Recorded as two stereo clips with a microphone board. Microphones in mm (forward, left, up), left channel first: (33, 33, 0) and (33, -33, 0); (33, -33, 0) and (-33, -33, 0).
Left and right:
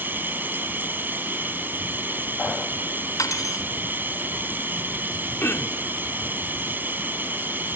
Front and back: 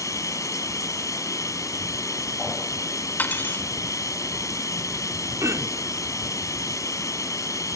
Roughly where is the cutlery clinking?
Ahead left.